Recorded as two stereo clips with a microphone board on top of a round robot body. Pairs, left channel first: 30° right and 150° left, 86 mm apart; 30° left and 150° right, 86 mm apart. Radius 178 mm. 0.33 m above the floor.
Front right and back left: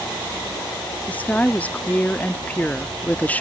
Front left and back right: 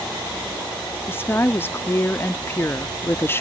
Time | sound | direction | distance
1.1 | a woman speaking | 20° left | ?